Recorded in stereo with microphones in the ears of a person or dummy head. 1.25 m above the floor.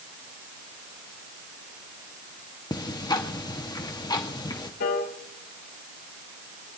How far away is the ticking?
About 0.8 m.